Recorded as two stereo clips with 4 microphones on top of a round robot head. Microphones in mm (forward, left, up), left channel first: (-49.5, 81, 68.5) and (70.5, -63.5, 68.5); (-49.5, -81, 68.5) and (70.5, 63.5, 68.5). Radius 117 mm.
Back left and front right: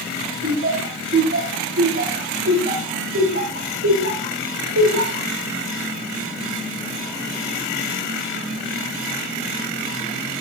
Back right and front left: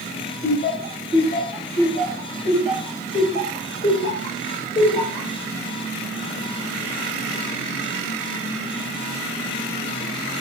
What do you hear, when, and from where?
0.4 s laughter: 90° right, 10 m; by 5.3 s 65° right, 7 m